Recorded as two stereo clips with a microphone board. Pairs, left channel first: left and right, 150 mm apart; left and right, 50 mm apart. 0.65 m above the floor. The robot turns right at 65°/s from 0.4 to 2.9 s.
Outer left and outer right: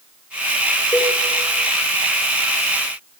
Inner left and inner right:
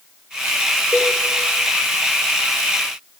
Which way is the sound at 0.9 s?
25° left (ahead or behind).